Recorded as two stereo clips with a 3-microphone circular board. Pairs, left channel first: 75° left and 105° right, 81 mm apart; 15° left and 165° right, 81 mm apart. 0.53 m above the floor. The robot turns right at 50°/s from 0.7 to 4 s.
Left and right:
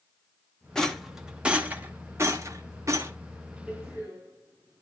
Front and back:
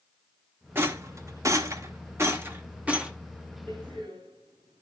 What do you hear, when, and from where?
0.8 s a rattle: 155° left, 1.2 m; by 3.1 s 90° right, 1.2 m
3.7 s a door slam: 175° right, 5 m; by 4.8 s 155° right, 5 m